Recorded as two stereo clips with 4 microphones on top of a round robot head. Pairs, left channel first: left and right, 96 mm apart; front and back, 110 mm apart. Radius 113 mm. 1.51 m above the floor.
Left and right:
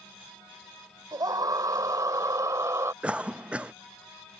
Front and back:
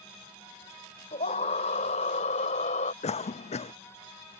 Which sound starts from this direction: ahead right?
A scream, at 1.1 s.